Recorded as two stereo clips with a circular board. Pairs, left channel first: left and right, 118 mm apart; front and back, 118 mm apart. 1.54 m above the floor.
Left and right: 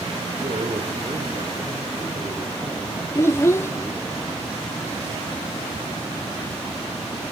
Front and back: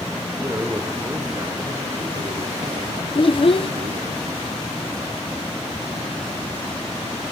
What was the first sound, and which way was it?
A man speaking, 110° right.